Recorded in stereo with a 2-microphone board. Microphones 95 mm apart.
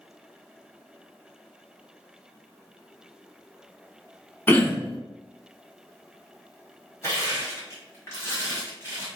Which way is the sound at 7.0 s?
30° left (ahead or behind).